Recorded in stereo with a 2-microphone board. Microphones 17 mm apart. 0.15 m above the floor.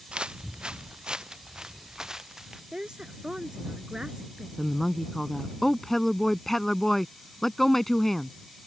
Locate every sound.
0.1 s footsteps: 75° right (ahead or behind); by 2.6 s 25° right (ahead or behind)
2.7 s a woman speaking: 50° right (ahead or behind)
4.6 s a woman speaking: 20° left (ahead or behind)